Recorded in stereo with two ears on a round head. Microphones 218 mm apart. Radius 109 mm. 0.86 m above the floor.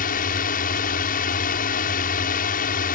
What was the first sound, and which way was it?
A drone, 40° left (ahead or behind).